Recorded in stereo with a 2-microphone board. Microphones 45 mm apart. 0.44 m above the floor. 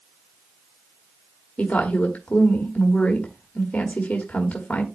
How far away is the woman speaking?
About 1.5 m.